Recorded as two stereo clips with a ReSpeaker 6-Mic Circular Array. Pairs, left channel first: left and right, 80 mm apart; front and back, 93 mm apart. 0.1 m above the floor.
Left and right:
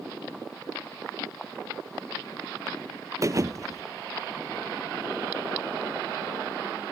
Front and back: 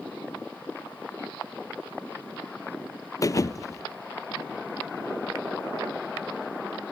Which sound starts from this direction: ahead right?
A thud, at 3.2 s.